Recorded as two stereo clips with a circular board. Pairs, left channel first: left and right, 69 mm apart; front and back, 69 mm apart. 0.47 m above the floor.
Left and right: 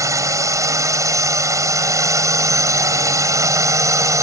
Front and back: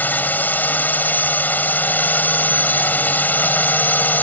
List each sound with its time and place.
0.0 s a drone: 60° right